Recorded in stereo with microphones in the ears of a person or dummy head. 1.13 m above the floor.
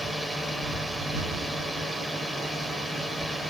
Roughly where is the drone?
Centre.